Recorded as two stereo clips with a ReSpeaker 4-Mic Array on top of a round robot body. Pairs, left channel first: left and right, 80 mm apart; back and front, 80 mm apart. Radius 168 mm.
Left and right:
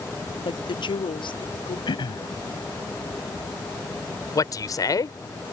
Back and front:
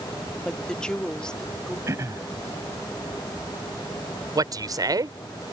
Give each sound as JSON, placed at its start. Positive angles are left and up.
{"t": 0.5, "sound": "a woman speaking", "azimuth_deg": 100}
{"t": 1.9, "sound": "throat clearing", "azimuth_deg": 55}
{"t": 4.3, "sound": "a man speaking", "azimuth_deg": 45}